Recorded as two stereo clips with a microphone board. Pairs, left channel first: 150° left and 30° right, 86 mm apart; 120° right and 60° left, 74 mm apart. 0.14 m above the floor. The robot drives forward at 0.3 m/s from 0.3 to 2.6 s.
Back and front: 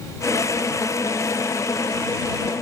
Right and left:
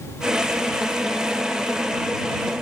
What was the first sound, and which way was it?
Only background noise.